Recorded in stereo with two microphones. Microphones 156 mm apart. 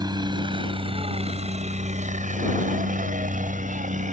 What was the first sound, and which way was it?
A helicopter, 25° right (ahead or behind).